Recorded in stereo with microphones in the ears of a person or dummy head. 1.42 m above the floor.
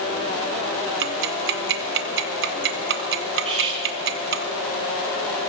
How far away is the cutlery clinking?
About 1.8 m.